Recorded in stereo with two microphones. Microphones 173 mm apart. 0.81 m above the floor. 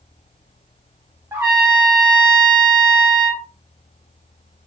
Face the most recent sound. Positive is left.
turn(degrees=-15)  # may be behind; listen again after turning